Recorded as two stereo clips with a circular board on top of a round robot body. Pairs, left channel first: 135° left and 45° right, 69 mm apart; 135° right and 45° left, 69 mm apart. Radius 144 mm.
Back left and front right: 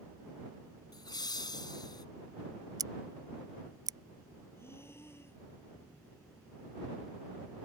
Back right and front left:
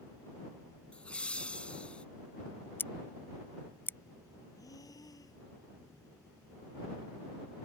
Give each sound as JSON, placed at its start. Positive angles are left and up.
{"t": 0.9, "sound": "laughter", "azimuth_deg": 150}
{"t": 2.8, "sound": "scissors", "azimuth_deg": -75}
{"t": 4.5, "sound": "breathing", "azimuth_deg": -170}